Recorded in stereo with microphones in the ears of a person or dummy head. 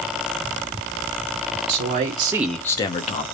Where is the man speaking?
60° right (ahead or behind), 0.7 m; by 3.2 s 40° left (ahead or behind), 0.8 m.